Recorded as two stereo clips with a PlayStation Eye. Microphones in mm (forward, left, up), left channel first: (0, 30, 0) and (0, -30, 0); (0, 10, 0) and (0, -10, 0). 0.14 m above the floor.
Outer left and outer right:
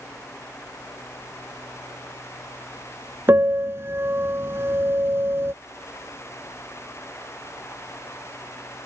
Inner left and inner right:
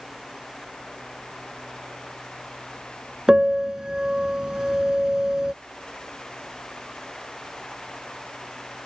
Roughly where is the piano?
Right.